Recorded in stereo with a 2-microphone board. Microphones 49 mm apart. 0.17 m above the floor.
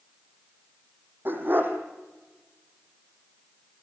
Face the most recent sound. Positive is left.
turn(degrees=-45)  # may be behind; listen again after turning